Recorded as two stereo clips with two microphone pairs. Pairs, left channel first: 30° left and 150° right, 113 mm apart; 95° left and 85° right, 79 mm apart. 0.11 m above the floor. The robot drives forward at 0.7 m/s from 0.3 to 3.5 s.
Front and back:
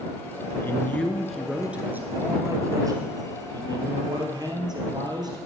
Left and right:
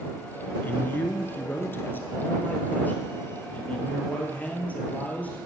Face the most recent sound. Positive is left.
turn(degrees=165)